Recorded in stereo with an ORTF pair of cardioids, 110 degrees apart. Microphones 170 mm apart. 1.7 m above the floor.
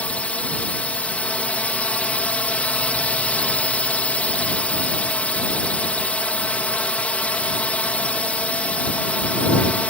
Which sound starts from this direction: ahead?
A drone, at 0.0 s.